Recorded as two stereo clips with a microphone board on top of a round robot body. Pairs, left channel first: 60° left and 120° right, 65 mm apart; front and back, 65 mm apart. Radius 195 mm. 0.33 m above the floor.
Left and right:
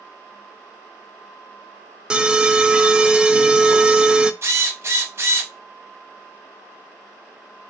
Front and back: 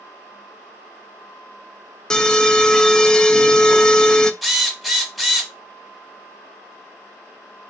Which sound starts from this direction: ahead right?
An alarm, at 2.1 s.